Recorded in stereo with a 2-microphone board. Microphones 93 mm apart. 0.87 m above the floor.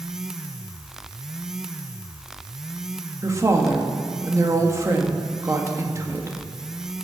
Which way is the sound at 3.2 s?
30° right (ahead or behind).